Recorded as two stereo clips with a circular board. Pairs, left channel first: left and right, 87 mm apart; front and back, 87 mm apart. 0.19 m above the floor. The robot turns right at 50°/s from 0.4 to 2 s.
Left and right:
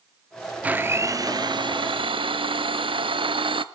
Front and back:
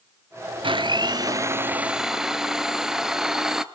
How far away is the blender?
About 0.6 m.